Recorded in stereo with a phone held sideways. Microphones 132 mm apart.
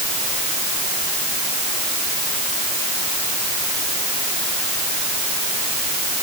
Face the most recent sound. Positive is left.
No sound to turn to.